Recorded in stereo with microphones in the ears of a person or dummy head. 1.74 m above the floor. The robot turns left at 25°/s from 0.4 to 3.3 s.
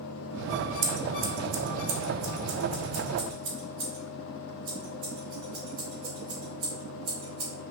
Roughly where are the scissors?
Right.